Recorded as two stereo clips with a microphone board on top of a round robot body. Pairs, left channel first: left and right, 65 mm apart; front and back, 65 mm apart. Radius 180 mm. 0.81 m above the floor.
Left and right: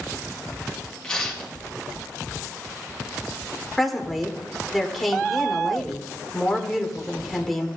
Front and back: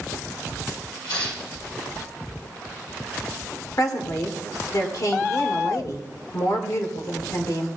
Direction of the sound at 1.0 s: 15° left.